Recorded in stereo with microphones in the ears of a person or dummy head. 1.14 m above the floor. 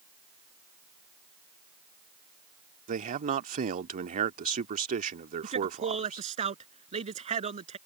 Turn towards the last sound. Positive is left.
turn(degrees=-35)  # may be behind; listen again after turning